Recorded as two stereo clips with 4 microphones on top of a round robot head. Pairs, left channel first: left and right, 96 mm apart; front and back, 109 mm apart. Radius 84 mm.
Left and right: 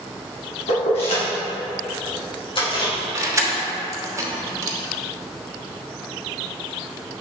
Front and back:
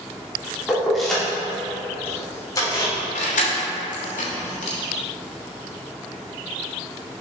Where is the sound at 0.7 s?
100° left, 2.5 m; by 2.9 s 55° left, 3.5 m.